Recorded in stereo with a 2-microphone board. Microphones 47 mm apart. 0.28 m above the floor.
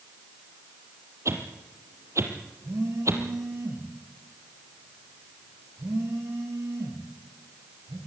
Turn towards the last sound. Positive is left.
turn(degrees=-85)